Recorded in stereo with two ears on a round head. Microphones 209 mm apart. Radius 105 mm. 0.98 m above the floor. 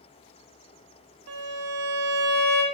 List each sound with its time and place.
1.3 s a violin: 75° right (ahead or behind), 0.8 m